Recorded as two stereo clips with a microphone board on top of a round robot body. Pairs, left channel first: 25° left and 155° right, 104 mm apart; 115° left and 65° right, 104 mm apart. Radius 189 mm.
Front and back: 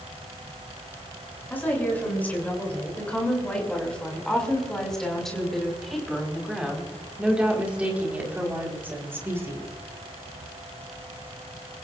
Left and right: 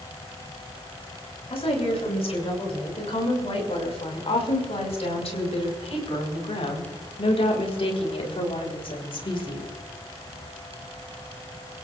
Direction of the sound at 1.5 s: 95° left.